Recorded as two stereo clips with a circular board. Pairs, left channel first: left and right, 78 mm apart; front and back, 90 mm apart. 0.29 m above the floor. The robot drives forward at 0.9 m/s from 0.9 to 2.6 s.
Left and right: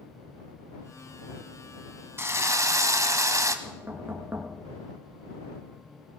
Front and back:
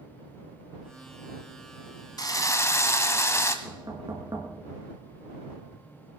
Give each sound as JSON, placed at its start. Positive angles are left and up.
{"t": 2.2, "sound": "a drill", "azimuth_deg": -35, "distance_m": 1.2}
{"t": 3.6, "sound": "knocking", "azimuth_deg": -145, "distance_m": 3.0}